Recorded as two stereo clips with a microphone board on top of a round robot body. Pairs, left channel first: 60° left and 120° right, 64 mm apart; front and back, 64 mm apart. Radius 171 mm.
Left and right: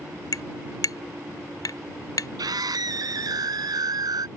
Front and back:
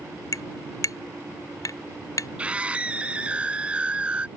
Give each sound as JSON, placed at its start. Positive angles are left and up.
{"t": 0.3, "sound": "tapping", "azimuth_deg": 30}
{"t": 2.4, "sound": "a scream", "azimuth_deg": -110}